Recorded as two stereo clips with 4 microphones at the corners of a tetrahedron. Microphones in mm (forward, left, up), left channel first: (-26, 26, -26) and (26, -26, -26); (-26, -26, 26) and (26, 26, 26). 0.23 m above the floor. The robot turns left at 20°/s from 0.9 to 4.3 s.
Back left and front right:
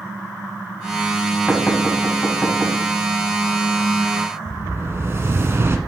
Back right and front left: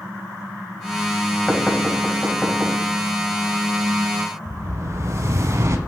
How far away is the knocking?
About 1.1 m.